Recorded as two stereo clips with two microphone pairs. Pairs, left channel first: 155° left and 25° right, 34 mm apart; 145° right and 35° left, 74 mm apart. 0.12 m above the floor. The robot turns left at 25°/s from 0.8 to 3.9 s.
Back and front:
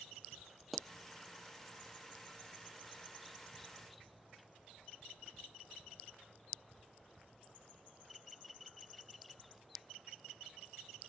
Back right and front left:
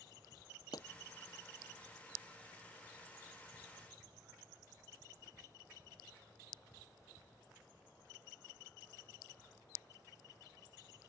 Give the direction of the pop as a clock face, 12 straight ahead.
4 o'clock.